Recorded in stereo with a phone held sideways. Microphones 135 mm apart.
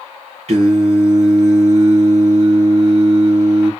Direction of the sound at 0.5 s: 50° right (ahead or behind).